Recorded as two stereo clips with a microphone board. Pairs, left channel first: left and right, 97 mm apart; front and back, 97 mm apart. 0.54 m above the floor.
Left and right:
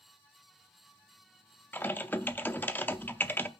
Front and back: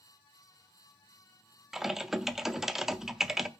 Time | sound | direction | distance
1.7 | typing on a keyboard | 100° left | 0.5 m